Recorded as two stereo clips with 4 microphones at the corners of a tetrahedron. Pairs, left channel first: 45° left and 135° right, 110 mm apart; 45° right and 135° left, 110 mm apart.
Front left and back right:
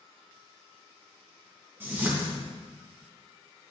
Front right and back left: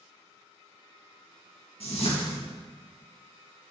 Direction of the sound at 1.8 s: 65° right.